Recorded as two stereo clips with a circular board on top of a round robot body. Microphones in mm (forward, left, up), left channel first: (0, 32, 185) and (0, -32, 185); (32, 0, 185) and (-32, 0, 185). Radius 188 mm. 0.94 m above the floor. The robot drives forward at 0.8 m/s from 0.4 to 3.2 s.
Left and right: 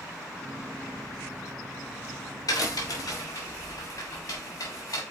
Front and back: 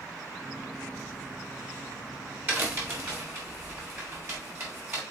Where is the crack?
120° left, 3 m; by 5.0 s 130° left, 3 m.